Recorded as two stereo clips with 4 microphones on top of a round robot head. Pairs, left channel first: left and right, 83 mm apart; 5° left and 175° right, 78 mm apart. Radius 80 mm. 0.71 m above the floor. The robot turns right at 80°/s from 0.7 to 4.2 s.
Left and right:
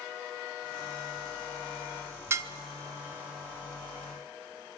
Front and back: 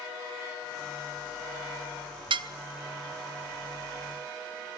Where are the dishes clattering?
155° right, 0.7 m; by 2.5 s 140° right, 0.7 m.